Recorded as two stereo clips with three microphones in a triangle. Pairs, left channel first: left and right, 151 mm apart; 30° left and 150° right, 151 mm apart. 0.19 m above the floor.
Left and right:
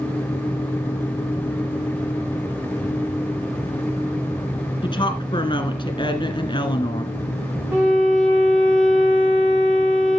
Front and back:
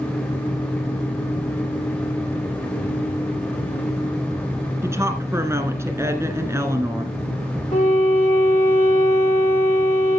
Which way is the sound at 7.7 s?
15° right.